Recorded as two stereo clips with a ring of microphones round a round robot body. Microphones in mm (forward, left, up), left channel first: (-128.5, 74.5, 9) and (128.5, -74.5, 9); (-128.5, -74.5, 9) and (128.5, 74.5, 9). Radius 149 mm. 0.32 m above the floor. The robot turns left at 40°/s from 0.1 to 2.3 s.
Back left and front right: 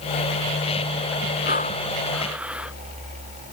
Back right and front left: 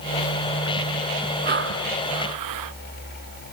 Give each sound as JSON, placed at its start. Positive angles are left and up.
{"t": 1.4, "sound": "breathing", "azimuth_deg": 90}